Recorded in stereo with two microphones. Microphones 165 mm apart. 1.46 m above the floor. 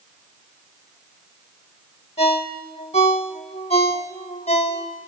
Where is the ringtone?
40° left (ahead or behind), 1.1 m.